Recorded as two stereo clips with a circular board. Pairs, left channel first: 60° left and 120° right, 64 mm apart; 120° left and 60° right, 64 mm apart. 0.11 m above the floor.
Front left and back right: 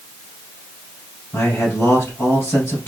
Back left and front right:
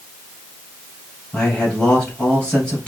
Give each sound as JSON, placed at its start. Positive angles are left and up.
{"t": 1.3, "sound": "a man speaking", "azimuth_deg": 55, "distance_m": 2.0}